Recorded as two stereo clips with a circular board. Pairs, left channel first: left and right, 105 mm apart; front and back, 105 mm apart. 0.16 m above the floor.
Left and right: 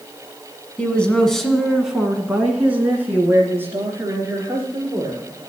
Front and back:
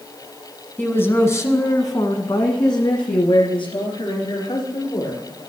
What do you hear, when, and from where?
0.8 s a woman speaking: 40° left, 1.1 m; by 5.2 s 30° right, 2.5 m